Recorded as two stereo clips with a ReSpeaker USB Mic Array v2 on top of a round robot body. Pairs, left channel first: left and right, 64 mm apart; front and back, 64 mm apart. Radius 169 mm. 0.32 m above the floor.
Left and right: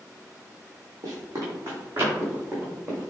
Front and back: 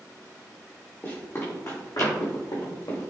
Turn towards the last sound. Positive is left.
turn(degrees=-15)